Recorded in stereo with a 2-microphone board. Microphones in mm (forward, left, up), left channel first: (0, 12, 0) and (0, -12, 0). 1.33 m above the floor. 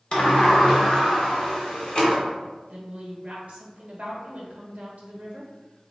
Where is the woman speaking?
60° right (ahead or behind), 1.2 m.